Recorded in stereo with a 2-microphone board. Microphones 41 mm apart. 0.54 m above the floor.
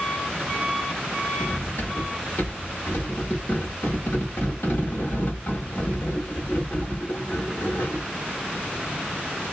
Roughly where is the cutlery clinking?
Left.